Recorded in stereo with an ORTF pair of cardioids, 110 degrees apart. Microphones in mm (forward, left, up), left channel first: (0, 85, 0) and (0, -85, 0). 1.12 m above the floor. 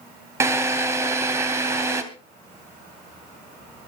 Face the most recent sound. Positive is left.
turn(degrees=-15)